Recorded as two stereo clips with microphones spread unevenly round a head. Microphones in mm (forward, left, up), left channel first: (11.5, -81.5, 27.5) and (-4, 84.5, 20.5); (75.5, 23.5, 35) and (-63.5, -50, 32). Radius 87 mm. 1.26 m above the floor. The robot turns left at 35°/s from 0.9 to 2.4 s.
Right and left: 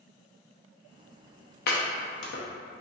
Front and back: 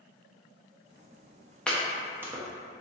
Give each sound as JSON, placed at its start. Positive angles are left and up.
{"t": 1.7, "sound": "chopping", "azimuth_deg": -55, "distance_m": 0.7}